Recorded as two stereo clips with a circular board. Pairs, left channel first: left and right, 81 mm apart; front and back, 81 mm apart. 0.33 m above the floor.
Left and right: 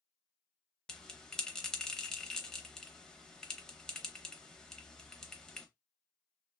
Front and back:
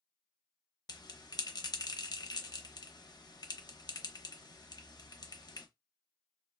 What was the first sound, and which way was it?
A bell, 10° left.